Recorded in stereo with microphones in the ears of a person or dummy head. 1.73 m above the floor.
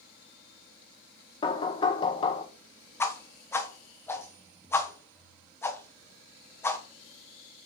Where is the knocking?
25° left (ahead or behind), 1.1 m.